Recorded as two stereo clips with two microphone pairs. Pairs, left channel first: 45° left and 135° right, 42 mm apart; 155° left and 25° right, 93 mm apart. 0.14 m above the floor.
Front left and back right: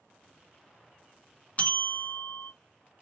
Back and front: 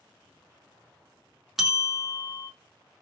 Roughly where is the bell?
Ahead left.